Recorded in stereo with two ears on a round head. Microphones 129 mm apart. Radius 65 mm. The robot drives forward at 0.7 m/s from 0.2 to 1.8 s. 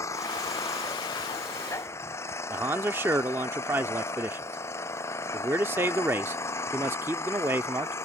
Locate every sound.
0.0 s an engine running: 20° left (ahead or behind)
2.5 s a man speaking: 15° right (ahead or behind)